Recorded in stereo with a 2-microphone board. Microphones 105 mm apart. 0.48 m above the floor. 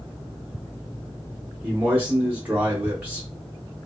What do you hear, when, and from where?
1.6 s a man speaking: 15° right (ahead or behind), 0.7 m